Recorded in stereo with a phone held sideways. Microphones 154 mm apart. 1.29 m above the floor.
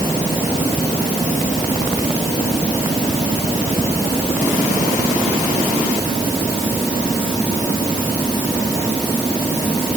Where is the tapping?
I don't hear tapping.